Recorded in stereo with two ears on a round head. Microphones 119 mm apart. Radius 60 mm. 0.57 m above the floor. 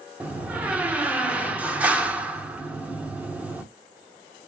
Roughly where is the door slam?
Centre.